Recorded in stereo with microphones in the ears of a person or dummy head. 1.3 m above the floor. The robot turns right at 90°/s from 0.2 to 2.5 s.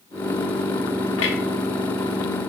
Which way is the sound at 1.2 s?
75° left (ahead or behind).